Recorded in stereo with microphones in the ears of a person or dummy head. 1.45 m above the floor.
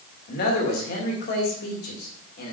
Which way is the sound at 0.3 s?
50° left (ahead or behind).